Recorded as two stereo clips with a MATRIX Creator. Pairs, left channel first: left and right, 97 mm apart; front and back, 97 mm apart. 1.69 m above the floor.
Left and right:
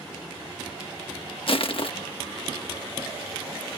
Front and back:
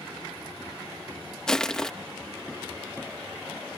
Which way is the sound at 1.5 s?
85° left.